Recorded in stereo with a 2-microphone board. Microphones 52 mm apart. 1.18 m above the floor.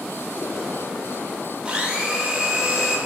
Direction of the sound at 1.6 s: 15° right (ahead or behind).